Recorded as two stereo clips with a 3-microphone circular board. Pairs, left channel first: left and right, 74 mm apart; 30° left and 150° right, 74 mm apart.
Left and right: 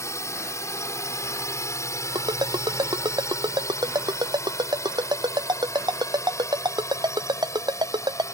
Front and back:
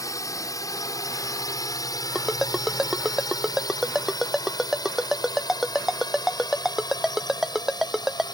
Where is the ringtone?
65° right.